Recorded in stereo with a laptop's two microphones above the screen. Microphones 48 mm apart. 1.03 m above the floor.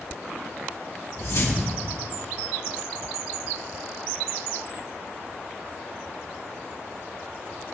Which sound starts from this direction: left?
A whoosh, at 1.2 s.